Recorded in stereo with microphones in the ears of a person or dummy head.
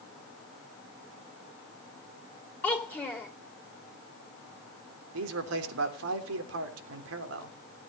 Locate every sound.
2.6 s a child speaking: 10° left (ahead or behind), 2.5 m
5.1 s a man speaking: 80° right, 3.5 m